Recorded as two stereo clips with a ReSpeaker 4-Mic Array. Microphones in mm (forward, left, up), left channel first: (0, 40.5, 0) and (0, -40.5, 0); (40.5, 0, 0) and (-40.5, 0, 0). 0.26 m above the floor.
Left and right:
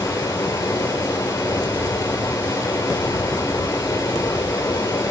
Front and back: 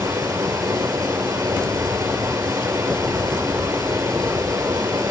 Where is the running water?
140° left, 1.9 m.